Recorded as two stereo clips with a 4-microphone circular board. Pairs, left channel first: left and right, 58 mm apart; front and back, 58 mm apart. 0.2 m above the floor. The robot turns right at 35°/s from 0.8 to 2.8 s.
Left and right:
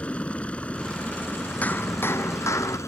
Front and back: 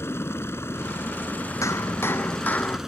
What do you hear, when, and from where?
0.0 s a helicopter: 30° left; by 2.9 s 100° left
1.6 s hammering: 30° left; by 2.8 s 70° left